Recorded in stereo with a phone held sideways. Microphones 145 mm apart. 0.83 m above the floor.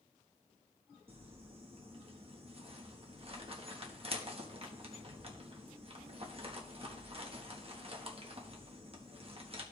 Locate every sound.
1.1 s crumpling: 40° right (ahead or behind), 1.3 m